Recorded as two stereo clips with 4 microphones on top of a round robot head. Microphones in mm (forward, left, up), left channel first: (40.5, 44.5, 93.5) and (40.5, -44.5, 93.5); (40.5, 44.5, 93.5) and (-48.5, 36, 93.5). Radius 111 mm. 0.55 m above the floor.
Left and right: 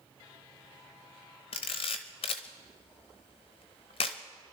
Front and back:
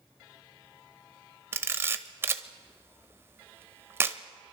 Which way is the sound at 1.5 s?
125° left.